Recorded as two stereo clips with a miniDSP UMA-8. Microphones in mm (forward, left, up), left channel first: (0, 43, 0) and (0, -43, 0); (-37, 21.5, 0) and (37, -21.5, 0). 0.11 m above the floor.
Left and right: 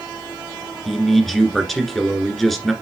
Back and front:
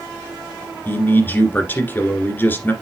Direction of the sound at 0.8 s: 175° left.